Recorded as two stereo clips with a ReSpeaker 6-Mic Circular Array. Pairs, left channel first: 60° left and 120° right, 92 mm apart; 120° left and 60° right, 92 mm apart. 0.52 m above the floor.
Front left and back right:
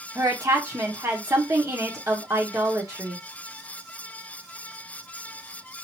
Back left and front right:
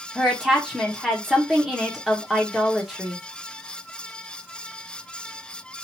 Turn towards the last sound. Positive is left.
turn(degrees=-145)